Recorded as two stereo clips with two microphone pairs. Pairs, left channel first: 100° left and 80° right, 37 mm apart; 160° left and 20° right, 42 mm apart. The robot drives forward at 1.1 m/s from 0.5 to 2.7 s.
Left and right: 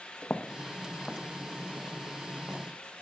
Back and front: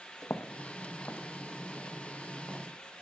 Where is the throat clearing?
I don't hear throat clearing.